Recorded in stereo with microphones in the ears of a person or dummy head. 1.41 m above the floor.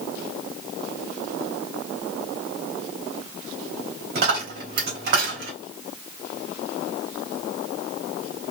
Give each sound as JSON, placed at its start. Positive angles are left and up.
{"t": 4.2, "sound": "a dropped coin", "side_deg": -55, "distance_m": 2.5}